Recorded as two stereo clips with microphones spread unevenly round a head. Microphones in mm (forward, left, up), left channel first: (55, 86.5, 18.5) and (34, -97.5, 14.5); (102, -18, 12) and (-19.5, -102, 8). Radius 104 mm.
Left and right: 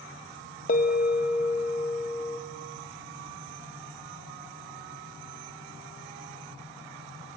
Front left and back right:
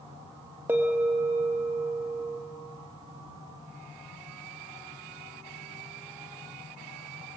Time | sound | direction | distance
0.7 | a bell | 135° left | 1.3 m